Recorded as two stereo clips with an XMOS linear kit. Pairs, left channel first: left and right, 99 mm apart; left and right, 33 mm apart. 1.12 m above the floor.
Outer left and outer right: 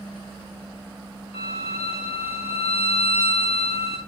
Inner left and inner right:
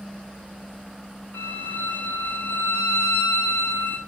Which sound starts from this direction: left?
A violin, at 1.3 s.